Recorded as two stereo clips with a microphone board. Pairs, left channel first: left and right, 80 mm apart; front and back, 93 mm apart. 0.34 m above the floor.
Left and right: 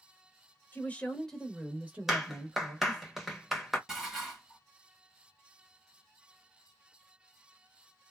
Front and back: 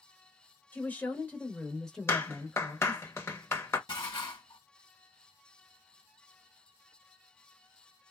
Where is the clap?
10° right, 0.8 m.